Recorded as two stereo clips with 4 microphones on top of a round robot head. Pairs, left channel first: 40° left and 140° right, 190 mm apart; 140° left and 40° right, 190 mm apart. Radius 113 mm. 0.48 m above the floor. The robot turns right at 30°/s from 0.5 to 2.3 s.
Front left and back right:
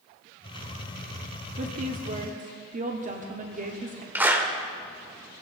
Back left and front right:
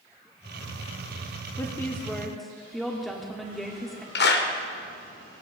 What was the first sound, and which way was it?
A woman speaking, 155° right.